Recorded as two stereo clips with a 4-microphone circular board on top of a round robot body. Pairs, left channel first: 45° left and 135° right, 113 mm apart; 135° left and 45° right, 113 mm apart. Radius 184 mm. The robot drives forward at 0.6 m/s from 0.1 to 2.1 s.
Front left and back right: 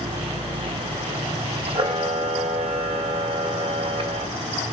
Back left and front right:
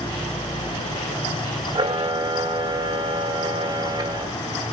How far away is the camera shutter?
About 1.7 m.